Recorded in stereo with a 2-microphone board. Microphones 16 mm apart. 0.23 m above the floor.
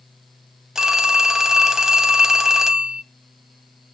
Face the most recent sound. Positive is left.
turn(degrees=-30)  # may be behind; listen again after turning